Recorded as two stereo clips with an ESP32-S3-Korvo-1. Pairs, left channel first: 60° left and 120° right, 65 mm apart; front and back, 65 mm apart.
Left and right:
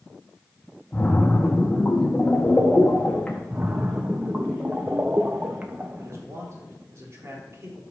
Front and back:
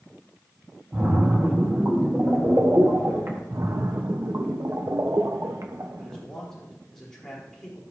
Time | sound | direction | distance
0.9 | a splash | 135° left | 1.7 m
3.5 | a splash | 175° right | 1.0 m
6.0 | a man speaking | 80° right | 4 m